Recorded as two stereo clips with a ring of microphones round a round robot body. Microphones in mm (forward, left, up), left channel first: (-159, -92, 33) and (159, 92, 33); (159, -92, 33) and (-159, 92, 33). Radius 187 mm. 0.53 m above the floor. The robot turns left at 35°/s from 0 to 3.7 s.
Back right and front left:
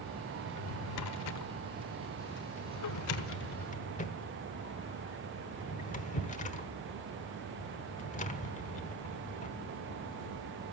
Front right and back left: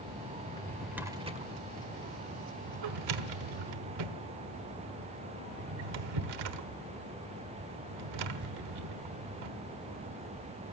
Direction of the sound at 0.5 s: 105° right.